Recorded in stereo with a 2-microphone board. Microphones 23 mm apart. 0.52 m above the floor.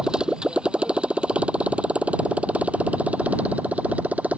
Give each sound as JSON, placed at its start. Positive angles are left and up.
{"t": 0.0, "sound": "a motorcycle", "side_deg": -35}